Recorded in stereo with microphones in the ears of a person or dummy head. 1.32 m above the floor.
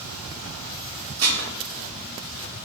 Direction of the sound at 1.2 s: 75° right (ahead or behind).